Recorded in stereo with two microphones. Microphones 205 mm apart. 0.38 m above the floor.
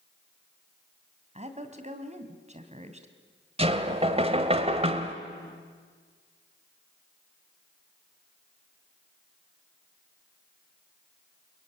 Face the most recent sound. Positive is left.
turn(degrees=-30)  # may be behind; listen again after turning